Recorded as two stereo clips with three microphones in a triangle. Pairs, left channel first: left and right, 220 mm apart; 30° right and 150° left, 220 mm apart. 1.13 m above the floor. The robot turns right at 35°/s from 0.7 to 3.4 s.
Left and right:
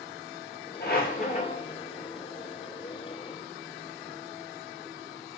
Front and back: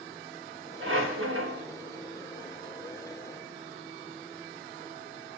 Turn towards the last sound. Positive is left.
turn(degrees=-140)